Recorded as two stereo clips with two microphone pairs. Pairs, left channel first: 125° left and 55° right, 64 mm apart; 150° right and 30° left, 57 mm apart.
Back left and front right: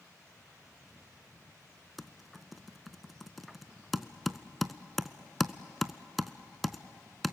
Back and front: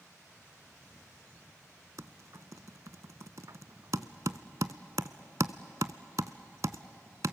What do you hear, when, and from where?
2.0 s typing on a keyboard: 35° left, 0.6 m